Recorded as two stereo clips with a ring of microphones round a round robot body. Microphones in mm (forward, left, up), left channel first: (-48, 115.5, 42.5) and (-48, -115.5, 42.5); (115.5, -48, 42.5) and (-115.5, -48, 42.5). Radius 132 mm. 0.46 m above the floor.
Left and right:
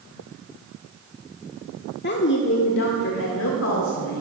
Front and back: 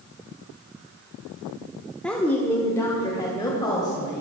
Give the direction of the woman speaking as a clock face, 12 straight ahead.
9 o'clock.